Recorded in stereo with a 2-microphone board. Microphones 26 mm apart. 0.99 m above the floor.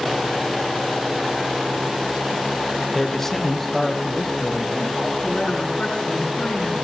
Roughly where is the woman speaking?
Left.